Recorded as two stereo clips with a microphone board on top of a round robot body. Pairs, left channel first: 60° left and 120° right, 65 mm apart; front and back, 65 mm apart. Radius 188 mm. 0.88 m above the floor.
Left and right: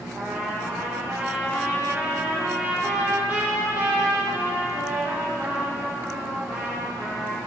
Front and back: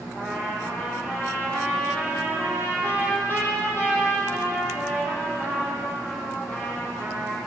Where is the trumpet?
55° right, 8.5 m.